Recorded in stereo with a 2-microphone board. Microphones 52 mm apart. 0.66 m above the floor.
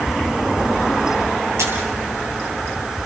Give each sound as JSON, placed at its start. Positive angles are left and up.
{"t": 1.6, "sound": "a camera shutter", "side_deg": -70, "distance_m": 7.5}